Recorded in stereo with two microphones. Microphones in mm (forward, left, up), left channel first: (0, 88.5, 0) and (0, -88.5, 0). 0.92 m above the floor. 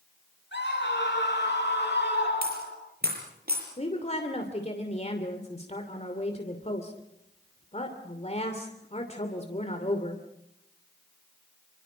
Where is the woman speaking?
40° left (ahead or behind), 2.5 m.